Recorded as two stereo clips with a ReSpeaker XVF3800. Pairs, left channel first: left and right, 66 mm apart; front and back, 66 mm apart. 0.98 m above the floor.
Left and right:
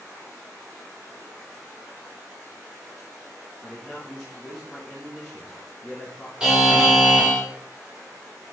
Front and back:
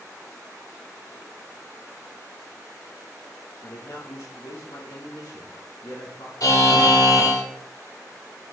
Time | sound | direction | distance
3.6 | a man speaking | 10° left | 1.7 m
6.4 | a buzzer | 10° right | 3 m